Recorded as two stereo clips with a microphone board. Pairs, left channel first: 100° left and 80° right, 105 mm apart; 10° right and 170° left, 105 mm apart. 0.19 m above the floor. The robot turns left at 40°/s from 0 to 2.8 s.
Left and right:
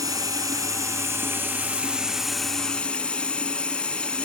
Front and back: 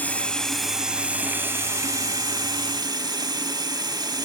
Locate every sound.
0.0 s running water: 75° right, 0.8 m; by 4.2 s 170° left, 0.8 m